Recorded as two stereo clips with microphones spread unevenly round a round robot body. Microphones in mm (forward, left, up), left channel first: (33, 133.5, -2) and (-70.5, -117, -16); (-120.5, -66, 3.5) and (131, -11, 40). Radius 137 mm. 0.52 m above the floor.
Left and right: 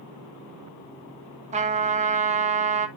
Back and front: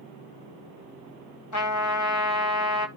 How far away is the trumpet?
About 2 m.